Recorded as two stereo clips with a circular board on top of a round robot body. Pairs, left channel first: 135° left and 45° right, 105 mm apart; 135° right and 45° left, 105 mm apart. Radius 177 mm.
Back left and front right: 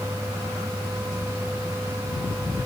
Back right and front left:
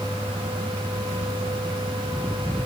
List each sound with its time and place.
Only background noise.